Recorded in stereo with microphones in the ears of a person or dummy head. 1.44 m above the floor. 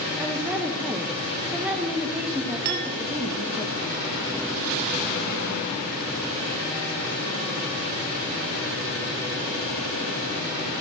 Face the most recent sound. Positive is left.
turn(degrees=-55)  # may be behind; listen again after turning